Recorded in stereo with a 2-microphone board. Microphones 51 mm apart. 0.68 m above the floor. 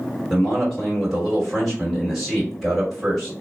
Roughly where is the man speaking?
Centre.